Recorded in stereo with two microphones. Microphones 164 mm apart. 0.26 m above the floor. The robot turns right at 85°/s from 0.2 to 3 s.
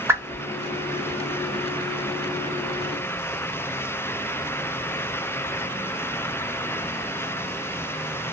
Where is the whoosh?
15° right (ahead or behind), 0.7 m; by 0.4 s centre (ahead or behind), 0.7 m.